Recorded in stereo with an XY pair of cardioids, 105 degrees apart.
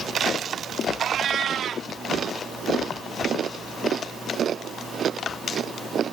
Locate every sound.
1.0 s a cat meowing: 60° right